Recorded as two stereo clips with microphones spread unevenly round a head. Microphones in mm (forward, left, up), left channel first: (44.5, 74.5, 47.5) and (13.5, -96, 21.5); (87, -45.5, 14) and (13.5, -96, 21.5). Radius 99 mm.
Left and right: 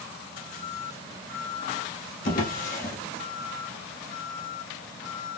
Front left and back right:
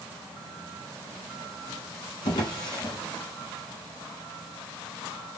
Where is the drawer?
75° left, 1.3 m.